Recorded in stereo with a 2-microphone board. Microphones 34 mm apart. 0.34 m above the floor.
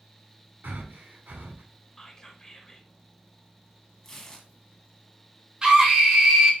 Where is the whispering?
15° left (ahead or behind), 1.1 m.